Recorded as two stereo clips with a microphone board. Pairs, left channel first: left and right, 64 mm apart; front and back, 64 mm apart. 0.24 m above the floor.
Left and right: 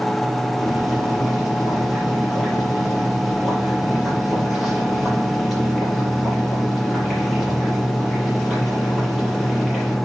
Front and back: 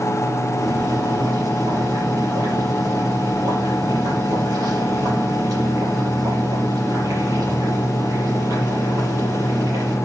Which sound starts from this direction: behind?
Boiling, at 0.6 s.